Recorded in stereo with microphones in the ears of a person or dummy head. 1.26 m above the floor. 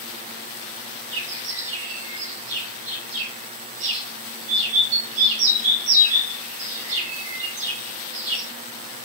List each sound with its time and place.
1.1 s a bird: 75° right (ahead or behind), 2.5 m